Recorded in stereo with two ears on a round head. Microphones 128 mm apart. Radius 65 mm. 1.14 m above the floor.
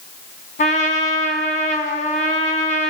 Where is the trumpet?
55° left (ahead or behind), 3 m.